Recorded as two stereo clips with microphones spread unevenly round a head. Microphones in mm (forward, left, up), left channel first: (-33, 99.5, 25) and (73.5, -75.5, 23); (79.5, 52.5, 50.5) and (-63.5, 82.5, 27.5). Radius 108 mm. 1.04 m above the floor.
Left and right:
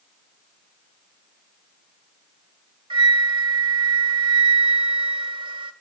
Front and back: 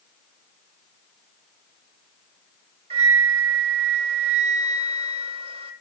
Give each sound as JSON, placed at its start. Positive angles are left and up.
{"t": 2.9, "sound": "a flute", "azimuth_deg": -125, "distance_m": 1.8}